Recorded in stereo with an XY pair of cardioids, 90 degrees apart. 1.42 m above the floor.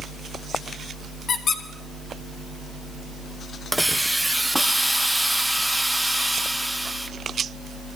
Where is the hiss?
10° right, 0.7 m.